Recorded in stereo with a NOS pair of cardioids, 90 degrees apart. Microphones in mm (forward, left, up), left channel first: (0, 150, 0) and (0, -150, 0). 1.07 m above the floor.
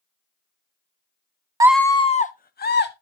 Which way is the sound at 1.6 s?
15° right.